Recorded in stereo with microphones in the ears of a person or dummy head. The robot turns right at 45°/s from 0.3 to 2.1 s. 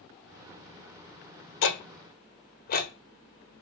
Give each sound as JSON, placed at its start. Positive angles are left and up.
{"t": 1.6, "sound": "ticking", "side_deg": 65, "distance_m": 0.6}